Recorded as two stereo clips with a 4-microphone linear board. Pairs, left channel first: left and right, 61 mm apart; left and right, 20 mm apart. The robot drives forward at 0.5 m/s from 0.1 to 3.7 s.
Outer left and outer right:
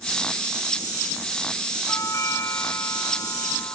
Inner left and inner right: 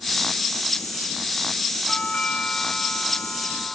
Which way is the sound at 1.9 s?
55° left (ahead or behind).